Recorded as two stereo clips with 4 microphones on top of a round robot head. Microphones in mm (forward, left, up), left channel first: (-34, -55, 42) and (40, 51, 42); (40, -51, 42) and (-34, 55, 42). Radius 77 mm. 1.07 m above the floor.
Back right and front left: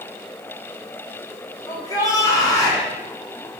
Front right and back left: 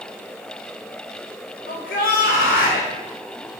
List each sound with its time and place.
1.7 s a shout: 60° right, 3 m